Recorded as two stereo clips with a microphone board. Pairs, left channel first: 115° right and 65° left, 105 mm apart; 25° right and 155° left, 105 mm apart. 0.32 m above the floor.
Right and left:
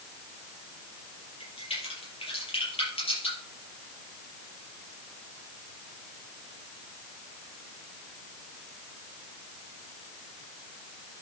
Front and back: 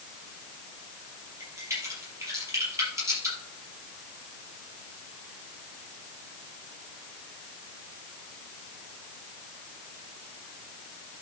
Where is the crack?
140° right, 5.5 m.